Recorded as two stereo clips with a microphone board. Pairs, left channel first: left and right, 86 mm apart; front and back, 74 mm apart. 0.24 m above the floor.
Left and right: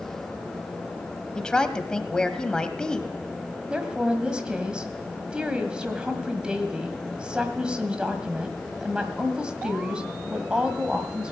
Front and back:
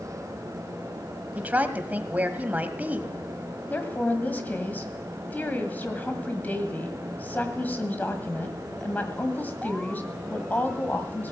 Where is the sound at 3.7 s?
25° right, 1.6 m.